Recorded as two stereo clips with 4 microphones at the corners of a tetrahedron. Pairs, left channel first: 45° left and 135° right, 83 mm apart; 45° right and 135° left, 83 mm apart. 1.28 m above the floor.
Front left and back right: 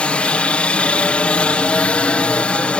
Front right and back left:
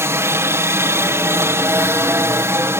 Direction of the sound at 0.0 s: 110° left.